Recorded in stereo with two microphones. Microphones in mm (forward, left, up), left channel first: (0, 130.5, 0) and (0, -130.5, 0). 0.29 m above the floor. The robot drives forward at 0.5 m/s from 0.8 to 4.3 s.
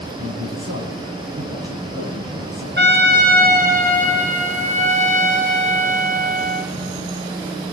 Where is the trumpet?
45° right (ahead or behind), 1.5 m; by 6.7 s 30° right (ahead or behind), 2 m.